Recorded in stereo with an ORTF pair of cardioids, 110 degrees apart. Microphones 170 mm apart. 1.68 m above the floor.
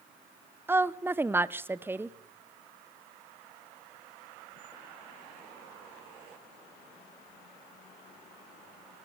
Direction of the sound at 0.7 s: 15° right.